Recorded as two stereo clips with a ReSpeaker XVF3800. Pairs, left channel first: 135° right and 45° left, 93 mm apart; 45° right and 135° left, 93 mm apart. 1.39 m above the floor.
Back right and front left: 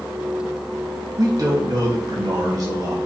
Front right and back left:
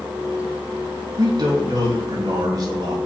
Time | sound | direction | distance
1.2 | a man speaking | 95° left | 2.5 m